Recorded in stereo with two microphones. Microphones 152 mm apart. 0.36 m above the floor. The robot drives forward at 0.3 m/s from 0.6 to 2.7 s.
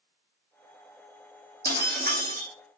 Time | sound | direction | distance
1.6 | breaking glass | 80° right | 2.5 m